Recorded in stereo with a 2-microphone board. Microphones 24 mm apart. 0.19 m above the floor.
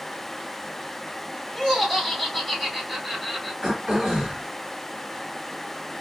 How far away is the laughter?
About 1.8 m.